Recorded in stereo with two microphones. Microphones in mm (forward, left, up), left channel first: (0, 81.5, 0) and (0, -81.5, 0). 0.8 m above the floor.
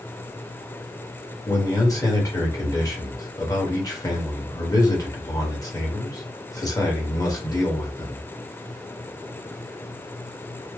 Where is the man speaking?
20° left (ahead or behind), 1.2 m.